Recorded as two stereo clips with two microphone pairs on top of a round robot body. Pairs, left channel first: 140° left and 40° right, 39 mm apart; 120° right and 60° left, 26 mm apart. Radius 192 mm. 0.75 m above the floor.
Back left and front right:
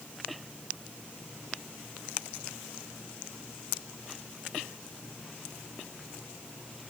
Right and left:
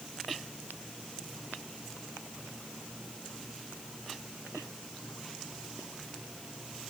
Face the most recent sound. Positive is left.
No sound to turn to.